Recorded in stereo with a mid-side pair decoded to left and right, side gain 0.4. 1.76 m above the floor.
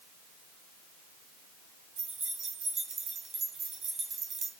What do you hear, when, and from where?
2.0 s keys jangling: 70° right, 2.5 m